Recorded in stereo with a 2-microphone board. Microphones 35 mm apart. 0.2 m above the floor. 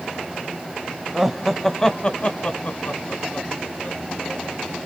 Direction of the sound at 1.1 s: 10° right (ahead or behind).